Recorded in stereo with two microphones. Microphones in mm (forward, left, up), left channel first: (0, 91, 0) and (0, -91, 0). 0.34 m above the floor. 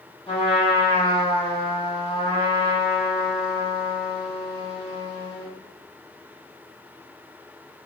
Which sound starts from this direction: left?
A trumpet, at 0.3 s.